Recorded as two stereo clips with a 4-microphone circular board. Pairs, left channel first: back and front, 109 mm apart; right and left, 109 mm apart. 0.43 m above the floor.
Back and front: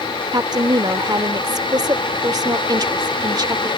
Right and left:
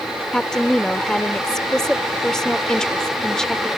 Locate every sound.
0.3 s a woman speaking: 10° right